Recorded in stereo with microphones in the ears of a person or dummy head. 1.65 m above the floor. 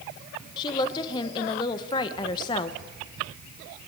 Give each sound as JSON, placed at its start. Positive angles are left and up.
{"t": 0.6, "sound": "a woman speaking", "side_deg": 25, "distance_m": 1.1}